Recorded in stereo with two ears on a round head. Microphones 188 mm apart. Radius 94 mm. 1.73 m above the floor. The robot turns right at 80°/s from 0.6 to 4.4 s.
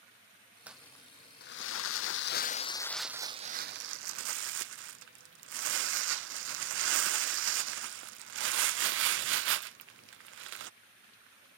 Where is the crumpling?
5° right; by 10.7 s 70° right.